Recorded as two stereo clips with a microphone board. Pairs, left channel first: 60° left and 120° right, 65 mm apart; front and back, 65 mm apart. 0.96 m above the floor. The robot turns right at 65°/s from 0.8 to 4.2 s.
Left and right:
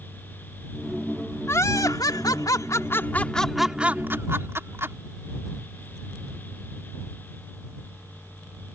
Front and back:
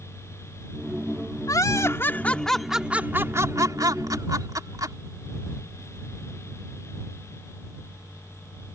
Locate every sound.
1.5 s laughter: 15° left; by 5.0 s 165° right